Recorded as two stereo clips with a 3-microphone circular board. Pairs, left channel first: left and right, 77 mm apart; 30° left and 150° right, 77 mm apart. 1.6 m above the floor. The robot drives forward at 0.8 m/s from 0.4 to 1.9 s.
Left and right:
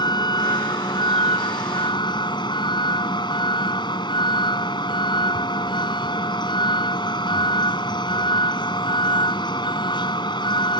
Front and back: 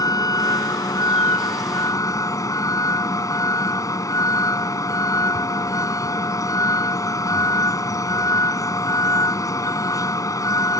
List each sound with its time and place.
0.0 s a vehicle: 65° left; by 10.8 s 75° left